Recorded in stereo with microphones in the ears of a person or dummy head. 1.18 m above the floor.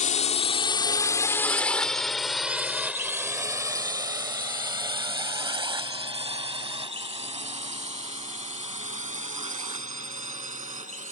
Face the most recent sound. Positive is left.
turn(degrees=-30)  # may be behind; listen again after turning